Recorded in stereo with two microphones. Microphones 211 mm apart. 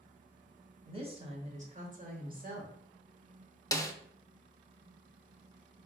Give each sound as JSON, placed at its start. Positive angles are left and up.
{"t": 0.8, "sound": "a woman speaking", "side_deg": -25, "distance_m": 1.5}
{"t": 3.7, "sound": "a snare drum", "side_deg": 15, "distance_m": 0.6}